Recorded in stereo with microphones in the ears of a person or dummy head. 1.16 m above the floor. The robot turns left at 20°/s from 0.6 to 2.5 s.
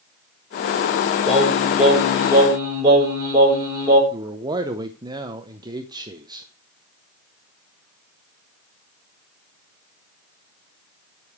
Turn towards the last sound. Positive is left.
turn(degrees=-20)  # may be behind; listen again after turning